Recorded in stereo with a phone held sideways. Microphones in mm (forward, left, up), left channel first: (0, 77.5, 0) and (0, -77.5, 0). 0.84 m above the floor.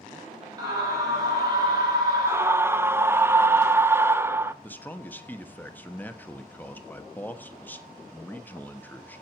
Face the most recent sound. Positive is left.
turn(degrees=10)  # may be behind; listen again after turning